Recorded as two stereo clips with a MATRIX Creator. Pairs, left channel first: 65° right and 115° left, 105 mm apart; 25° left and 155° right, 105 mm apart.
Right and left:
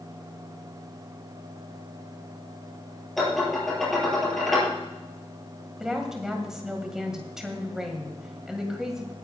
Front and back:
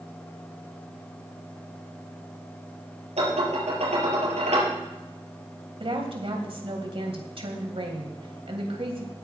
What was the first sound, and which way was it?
Dishes clattering, 155° right.